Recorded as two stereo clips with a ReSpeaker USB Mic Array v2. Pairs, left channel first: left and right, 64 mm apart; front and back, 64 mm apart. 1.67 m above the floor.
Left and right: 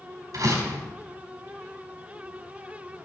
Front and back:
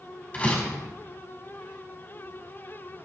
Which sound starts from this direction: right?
A door slam, at 0.3 s.